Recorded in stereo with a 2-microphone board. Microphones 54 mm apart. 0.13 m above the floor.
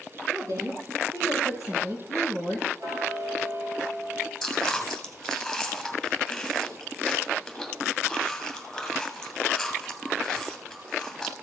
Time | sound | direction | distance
0.3 | a woman speaking | 75° right (ahead or behind) | 5 m
2.8 | ticking | 75° right (ahead or behind) | 2.5 m
4.4 | chewing | 5° left (ahead or behind) | 2 m